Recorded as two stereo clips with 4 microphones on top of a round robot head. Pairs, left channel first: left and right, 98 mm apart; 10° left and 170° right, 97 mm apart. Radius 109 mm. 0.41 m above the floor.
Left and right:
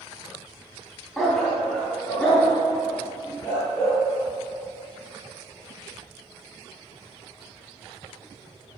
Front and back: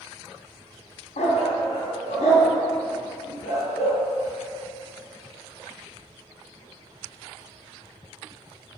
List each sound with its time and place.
1.2 s a dog barking: 5° left, 1.5 m; by 4.0 s 15° left, 4.5 m